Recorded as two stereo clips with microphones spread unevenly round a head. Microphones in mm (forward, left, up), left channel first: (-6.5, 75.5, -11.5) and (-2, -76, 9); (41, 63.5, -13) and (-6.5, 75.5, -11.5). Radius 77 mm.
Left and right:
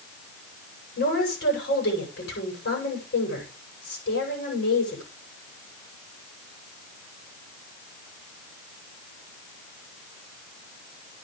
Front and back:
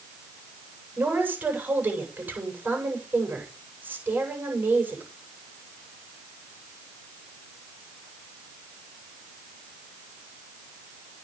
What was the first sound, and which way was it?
A woman speaking, 110° left.